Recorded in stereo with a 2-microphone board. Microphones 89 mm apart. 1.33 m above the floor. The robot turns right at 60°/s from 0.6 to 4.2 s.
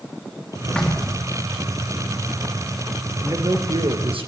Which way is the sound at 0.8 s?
10° left (ahead or behind).